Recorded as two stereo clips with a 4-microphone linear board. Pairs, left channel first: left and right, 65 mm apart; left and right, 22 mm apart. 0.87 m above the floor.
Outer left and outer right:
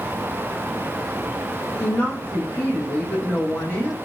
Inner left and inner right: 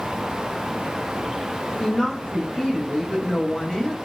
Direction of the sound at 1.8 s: 25° left (ahead or behind).